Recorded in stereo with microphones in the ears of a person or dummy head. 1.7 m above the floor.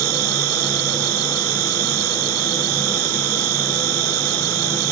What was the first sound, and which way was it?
An insect, 75° right (ahead or behind).